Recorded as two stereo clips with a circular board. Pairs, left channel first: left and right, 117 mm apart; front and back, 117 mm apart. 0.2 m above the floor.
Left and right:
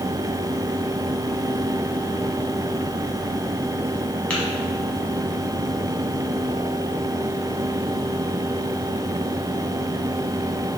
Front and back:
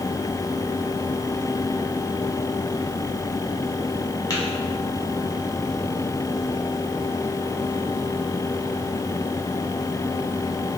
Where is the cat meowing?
No cat meowing in this recording.